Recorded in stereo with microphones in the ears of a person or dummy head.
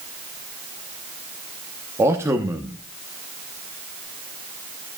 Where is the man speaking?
15° right (ahead or behind), 0.9 m.